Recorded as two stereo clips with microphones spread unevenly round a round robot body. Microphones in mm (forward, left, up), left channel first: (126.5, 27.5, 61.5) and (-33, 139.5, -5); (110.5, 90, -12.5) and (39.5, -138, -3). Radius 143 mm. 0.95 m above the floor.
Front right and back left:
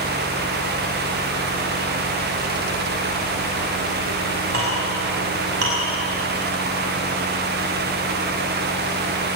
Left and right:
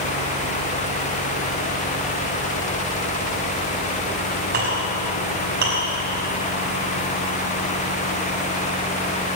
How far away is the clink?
About 6 m.